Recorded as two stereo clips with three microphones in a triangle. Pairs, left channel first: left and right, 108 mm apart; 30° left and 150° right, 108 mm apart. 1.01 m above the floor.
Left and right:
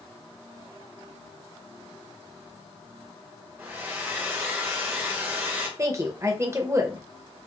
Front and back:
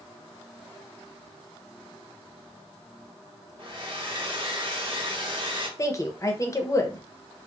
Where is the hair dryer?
155° right, 1.0 m.